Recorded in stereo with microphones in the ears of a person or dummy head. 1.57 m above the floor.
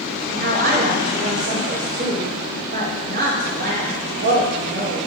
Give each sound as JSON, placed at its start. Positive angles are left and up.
{"t": 0.3, "sound": "a woman speaking", "side_deg": -55, "distance_m": 2.5}